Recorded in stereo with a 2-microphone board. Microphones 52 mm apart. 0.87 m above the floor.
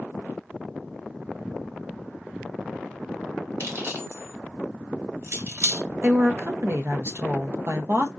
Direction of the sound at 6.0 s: 50° right (ahead or behind).